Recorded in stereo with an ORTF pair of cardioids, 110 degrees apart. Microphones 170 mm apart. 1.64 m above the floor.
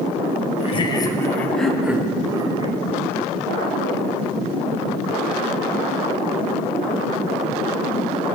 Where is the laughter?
35° left, 1.4 m; by 2.8 s 30° right, 1.6 m.